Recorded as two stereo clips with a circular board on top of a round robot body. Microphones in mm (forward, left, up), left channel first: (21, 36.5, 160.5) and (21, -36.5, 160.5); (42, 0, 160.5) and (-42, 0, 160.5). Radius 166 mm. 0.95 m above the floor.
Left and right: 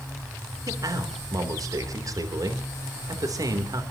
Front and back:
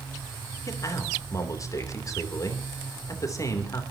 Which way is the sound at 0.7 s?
50° right.